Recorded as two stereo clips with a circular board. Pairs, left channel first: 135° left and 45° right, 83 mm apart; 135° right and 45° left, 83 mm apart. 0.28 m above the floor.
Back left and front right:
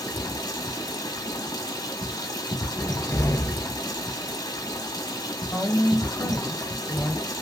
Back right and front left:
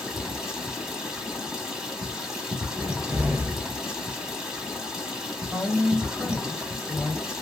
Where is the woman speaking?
160° left, 1.0 m.